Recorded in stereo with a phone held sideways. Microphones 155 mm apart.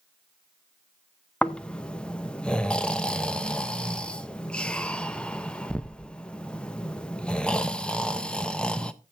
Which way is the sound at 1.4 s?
5° left (ahead or behind).